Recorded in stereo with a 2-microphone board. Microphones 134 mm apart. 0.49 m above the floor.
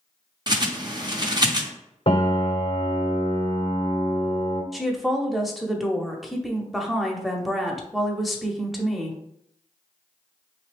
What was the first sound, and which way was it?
A bird, 30° right (ahead or behind).